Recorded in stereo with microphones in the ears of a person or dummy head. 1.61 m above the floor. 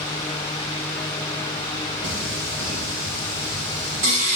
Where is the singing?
40° right (ahead or behind), 1.1 m.